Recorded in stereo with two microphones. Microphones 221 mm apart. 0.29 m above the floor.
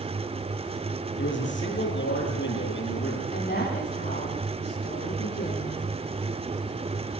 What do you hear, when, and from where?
1.2 s a man speaking: 65° left (ahead or behind), 7.5 m
3.3 s a woman speaking: 60° left (ahead or behind), 10 m